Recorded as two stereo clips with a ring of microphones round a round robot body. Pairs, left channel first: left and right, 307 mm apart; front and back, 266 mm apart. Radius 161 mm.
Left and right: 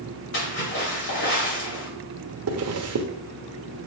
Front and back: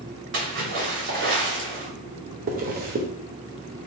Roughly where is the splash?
Behind left.